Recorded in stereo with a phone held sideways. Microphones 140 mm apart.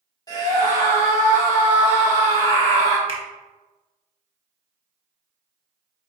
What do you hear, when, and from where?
0.3 s a scream: 30° left (ahead or behind), 1.7 m
3.1 s a finger snap: 35° right (ahead or behind), 0.9 m